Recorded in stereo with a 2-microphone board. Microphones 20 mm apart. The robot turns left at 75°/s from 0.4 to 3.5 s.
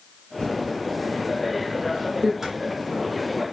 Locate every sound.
0.4 s typing on a keyboard: 50° left (ahead or behind), 1.2 m; by 2.3 s 40° right (ahead or behind), 1.2 m
2.4 s a squeak: 25° right (ahead or behind), 1.6 m; by 2.5 s 30° right (ahead or behind), 1.6 m